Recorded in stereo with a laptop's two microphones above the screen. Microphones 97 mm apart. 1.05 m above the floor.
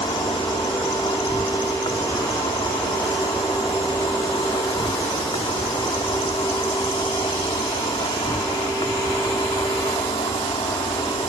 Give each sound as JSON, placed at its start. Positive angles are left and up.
{"t": 0.0, "sound": "an insect", "side_deg": 70}